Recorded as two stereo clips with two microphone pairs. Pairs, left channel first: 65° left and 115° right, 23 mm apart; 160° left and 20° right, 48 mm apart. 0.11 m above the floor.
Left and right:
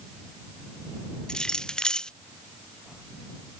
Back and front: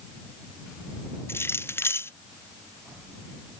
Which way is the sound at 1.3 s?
125° left.